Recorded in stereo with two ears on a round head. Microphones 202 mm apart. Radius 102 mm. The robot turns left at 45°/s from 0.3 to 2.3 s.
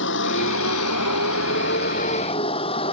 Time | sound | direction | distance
0.0 | a vehicle | 115° left | ?